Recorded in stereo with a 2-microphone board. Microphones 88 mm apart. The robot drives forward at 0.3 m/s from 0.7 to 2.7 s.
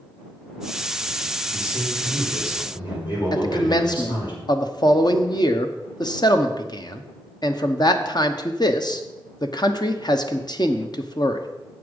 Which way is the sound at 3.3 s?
55° left (ahead or behind).